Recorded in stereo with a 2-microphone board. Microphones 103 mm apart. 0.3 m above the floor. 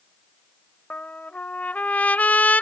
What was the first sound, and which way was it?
A trumpet, 15° left (ahead or behind).